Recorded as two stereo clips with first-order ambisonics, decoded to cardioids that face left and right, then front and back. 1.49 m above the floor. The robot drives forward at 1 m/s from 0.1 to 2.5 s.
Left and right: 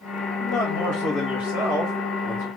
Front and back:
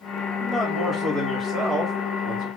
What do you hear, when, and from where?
0.4 s a man speaking: 85° left, 2 m; by 2.5 s 135° left, 2.5 m